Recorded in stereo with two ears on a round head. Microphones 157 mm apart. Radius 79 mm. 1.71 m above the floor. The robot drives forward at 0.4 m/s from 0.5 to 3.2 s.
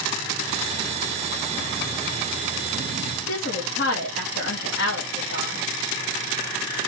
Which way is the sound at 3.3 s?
65° left (ahead or behind).